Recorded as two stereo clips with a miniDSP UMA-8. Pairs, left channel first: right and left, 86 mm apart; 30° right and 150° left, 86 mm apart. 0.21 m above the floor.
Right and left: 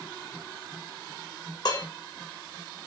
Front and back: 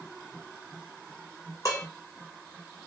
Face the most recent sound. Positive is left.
turn(degrees=-70)